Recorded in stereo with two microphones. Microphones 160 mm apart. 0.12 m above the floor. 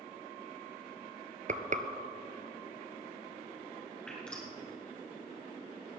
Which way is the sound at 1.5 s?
55° right (ahead or behind).